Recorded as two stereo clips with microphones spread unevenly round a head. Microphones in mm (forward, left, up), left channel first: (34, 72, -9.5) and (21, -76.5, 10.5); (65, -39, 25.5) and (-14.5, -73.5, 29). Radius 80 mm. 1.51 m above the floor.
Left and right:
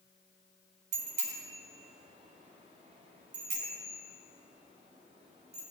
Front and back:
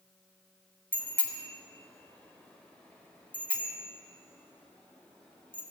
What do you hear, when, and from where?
0.9 s a bicycle bell: 50° right, 3.5 m